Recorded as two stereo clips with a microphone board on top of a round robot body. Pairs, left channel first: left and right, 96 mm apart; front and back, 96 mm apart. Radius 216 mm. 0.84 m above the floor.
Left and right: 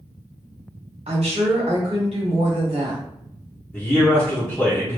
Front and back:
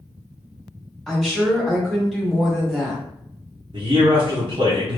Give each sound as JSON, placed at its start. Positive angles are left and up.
{"t": 1.1, "sound": "a woman speaking", "azimuth_deg": -90, "distance_m": 1.7}
{"t": 3.7, "sound": "a man speaking", "azimuth_deg": 165, "distance_m": 1.2}